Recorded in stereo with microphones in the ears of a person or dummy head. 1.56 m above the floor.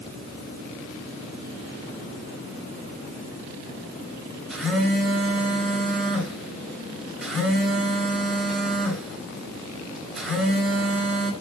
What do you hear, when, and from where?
4.5 s a phone buzzing: centre (ahead or behind), 4.5 m